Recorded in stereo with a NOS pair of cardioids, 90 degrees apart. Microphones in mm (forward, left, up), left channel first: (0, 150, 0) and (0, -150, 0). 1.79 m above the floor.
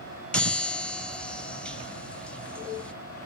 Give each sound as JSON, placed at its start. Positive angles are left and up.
{"t": 0.3, "sound": "a chime", "azimuth_deg": 5, "distance_m": 1.1}